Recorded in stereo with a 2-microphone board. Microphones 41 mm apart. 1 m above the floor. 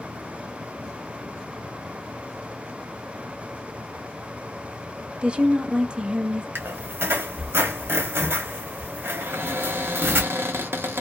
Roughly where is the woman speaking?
Right.